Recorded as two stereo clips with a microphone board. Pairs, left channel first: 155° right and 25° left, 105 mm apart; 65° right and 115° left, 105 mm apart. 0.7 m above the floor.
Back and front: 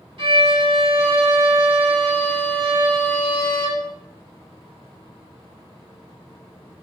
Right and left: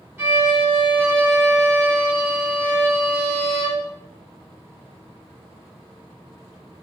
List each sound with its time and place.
0.2 s a violin: 45° left, 1.9 m